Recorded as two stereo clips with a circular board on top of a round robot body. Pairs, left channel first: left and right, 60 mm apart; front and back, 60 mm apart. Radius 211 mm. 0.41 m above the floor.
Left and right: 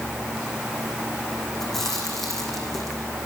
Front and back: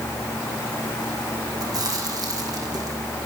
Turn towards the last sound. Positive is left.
turn(degrees=175)